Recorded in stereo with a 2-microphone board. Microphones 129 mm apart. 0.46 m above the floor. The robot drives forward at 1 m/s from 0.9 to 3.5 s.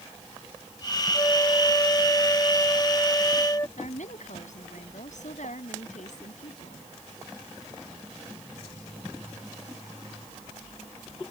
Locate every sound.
1.1 s a flute: 25° left (ahead or behind)
3.8 s a woman speaking: 75° left (ahead or behind)